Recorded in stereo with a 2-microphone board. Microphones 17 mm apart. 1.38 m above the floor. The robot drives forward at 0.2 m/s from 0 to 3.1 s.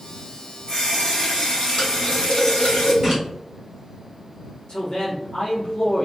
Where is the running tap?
80° left, 1.6 m; by 2.9 s 65° left (ahead or behind), 1.7 m.